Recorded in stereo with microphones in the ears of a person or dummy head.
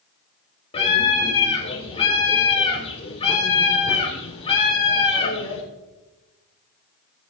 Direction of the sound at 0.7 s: 30° left (ahead or behind).